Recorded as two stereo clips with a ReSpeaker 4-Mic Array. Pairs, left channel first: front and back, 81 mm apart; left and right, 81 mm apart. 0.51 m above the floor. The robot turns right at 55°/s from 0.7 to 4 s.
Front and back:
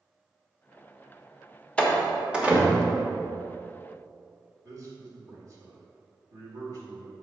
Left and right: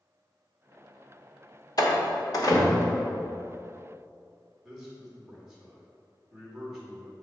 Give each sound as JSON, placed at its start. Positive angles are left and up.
{"t": 1.8, "sound": "a door slam", "azimuth_deg": 75, "distance_m": 1.1}
{"t": 4.6, "sound": "a man speaking", "azimuth_deg": -170, "distance_m": 1.8}